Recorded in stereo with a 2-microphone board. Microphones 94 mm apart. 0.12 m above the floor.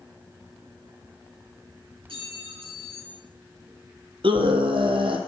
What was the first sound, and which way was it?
A clink, 80° right.